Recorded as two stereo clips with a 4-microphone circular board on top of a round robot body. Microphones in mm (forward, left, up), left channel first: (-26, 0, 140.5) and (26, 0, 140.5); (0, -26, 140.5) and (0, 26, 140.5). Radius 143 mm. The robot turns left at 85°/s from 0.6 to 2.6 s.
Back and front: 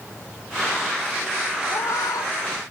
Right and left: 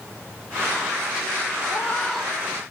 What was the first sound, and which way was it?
A cat meowing, 140° right.